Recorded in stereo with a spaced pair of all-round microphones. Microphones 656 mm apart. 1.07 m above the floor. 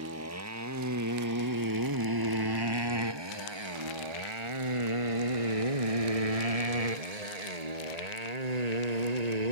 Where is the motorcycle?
20° right (ahead or behind); by 9.5 s 80° right.